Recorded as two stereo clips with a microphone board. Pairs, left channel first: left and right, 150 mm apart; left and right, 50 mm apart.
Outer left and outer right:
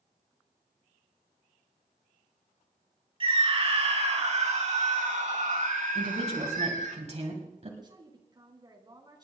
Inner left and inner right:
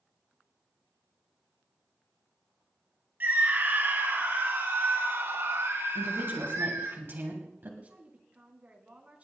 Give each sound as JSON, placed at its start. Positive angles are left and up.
{"t": 3.2, "sound": "a scream", "side_deg": -35, "distance_m": 3.0}
{"t": 6.0, "sound": "a woman speaking", "side_deg": -50, "distance_m": 2.0}
{"t": 7.8, "sound": "a woman speaking", "side_deg": -30, "distance_m": 2.5}